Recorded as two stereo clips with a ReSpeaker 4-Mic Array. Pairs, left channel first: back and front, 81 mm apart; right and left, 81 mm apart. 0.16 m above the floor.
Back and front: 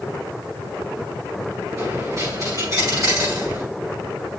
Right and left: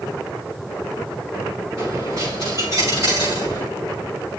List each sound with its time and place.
1.8 s a dropped coin: 45° left, 7.5 m